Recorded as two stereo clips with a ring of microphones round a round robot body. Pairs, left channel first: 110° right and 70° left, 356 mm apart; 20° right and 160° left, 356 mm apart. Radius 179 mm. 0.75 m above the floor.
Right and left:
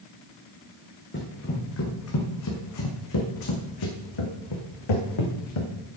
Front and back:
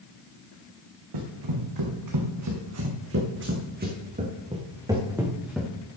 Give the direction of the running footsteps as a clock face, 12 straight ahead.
6 o'clock.